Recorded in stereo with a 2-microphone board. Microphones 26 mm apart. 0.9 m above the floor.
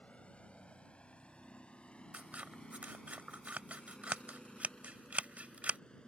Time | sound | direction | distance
0.0 | a vehicle | 60° left (ahead or behind) | ?
2.1 | scissors | 65° right (ahead or behind) | ?